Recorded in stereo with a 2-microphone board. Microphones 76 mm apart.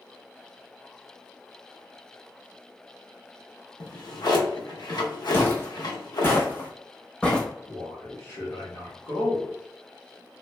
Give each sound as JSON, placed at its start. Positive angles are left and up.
{"t": 3.8, "sound": "a drawer", "side_deg": 65, "distance_m": 0.6}
{"t": 5.3, "sound": "footsteps", "side_deg": 25, "distance_m": 1.2}
{"t": 7.7, "sound": "a man speaking", "side_deg": 30, "distance_m": 1.2}